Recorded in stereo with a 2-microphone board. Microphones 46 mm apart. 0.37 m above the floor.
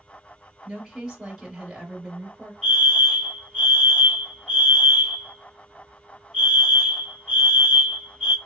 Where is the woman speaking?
5° right (ahead or behind), 2.0 m.